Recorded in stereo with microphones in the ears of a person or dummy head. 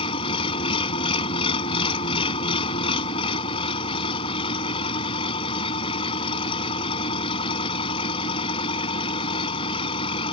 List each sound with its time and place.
0.0 s an engine running: 30° left (ahead or behind)